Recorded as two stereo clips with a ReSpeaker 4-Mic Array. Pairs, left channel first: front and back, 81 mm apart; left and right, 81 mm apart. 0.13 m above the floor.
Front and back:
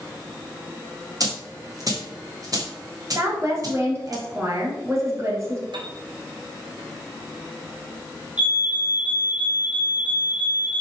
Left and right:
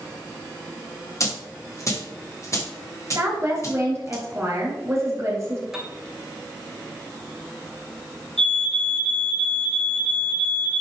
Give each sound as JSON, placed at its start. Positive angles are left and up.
{"t": 1.2, "sound": "a dropped coin", "azimuth_deg": 140, "distance_m": 2.5}
{"t": 3.1, "sound": "a woman speaking", "azimuth_deg": -135, "distance_m": 3.0}
{"t": 5.7, "sound": "a piano", "azimuth_deg": -175, "distance_m": 1.7}
{"t": 8.4, "sound": "a fire alarm", "azimuth_deg": 150, "distance_m": 2.0}